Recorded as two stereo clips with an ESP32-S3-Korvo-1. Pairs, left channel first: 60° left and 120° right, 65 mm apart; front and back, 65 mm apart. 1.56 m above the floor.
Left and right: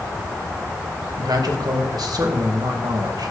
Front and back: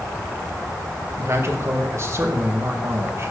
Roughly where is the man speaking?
Behind right.